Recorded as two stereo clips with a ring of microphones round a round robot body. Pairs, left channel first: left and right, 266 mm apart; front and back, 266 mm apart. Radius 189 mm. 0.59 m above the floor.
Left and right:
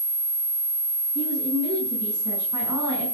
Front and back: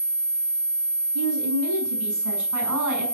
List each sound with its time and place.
1.1 s a woman speaking: 170° right, 7 m